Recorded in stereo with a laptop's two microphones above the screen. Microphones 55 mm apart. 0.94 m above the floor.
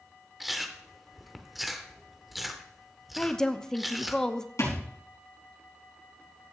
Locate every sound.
0.4 s chewing: 5° right (ahead or behind), 0.7 m
3.2 s a woman speaking: 15° left (ahead or behind), 0.7 m
4.6 s a thud: 75° left (ahead or behind), 4 m